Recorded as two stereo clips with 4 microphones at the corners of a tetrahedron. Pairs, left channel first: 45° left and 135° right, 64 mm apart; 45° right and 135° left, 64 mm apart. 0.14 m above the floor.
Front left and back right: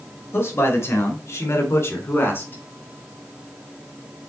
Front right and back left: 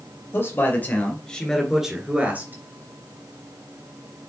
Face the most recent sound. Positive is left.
turn(degrees=95)